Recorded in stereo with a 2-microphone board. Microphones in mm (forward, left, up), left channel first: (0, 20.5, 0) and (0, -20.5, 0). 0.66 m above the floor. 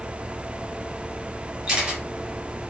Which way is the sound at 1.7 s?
25° right (ahead or behind).